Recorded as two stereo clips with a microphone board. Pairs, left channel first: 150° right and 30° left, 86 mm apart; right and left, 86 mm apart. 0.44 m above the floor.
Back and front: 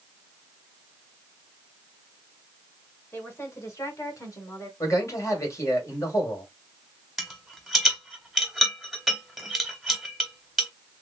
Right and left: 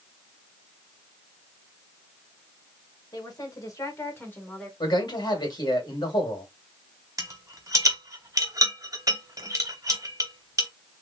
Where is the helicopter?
I don't hear a helicopter.